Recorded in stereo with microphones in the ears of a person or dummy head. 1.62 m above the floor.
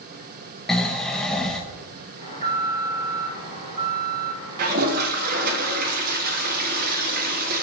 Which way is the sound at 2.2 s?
45° right (ahead or behind).